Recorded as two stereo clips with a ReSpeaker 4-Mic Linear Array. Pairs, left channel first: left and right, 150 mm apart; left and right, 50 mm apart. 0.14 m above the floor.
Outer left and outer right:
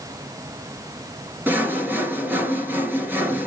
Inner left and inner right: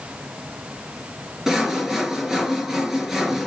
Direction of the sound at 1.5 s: 15° right (ahead or behind).